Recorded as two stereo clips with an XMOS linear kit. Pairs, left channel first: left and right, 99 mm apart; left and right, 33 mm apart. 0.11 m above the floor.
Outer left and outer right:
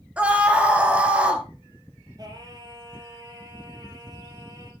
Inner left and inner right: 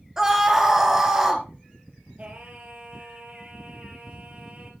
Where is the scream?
10° right (ahead or behind), 1.8 m.